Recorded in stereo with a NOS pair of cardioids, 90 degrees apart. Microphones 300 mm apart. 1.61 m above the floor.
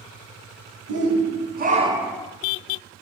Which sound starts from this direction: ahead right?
A shout, at 0.9 s.